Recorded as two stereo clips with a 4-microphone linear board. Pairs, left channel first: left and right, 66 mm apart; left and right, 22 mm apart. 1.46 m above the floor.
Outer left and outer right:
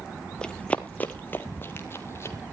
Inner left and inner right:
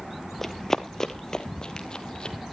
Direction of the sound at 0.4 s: 15° left (ahead or behind).